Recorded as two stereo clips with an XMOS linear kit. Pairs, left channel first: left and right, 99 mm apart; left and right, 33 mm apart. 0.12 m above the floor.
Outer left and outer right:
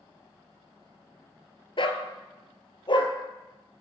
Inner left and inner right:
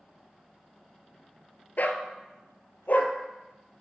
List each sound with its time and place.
1.8 s a dog barking: 60° left (ahead or behind), 0.8 m; by 3.1 s 55° left (ahead or behind), 1.1 m